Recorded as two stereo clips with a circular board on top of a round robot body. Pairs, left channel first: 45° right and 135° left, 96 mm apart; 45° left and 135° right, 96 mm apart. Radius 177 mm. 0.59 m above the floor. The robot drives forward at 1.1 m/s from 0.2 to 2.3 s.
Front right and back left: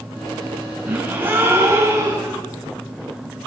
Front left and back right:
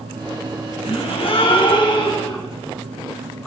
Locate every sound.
0.9 s a gasp: 60° left, 6.5 m; by 2.4 s 75° left, 5.5 m